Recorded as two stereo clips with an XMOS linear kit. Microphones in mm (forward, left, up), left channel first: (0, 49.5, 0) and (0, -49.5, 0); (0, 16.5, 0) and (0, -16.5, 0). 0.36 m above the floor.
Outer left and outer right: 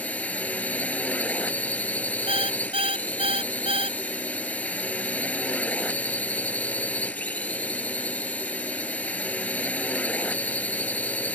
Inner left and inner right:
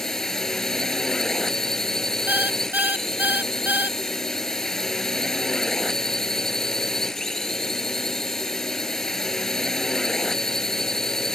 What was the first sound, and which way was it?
A drone, 15° left (ahead or behind).